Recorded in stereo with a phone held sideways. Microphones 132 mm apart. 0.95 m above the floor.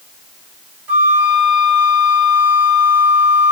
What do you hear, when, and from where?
0.9 s a flute: 10° right (ahead or behind), 1.4 m